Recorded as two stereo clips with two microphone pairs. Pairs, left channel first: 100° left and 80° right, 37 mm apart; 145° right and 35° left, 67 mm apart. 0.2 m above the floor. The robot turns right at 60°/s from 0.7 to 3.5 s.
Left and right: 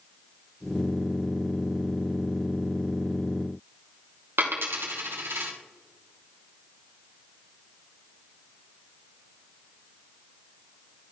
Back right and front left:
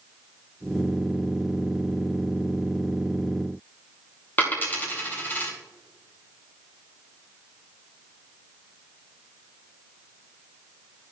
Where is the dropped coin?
80° right, 2.0 m.